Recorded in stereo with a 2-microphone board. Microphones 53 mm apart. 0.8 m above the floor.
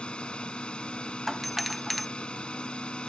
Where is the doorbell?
Centre (ahead or behind).